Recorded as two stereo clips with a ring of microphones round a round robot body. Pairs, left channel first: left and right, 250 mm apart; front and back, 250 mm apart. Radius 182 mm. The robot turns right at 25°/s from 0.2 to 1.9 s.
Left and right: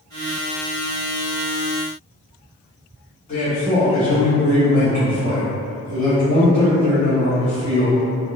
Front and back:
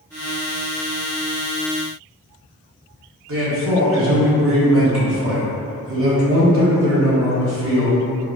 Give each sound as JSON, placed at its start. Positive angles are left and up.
{"t": 3.3, "sound": "a man speaking", "azimuth_deg": 155, "distance_m": 1.8}